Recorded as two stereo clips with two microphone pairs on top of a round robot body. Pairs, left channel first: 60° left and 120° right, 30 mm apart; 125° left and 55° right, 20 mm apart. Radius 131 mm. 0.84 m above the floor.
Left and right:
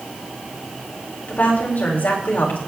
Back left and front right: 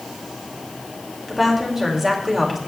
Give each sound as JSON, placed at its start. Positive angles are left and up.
{"t": 1.3, "sound": "a woman speaking", "azimuth_deg": 25, "distance_m": 3.5}